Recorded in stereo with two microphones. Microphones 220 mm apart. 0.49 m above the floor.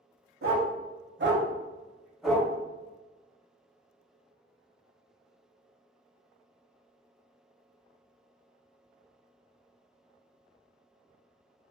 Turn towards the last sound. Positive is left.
turn(degrees=5)  # may be behind; listen again after turning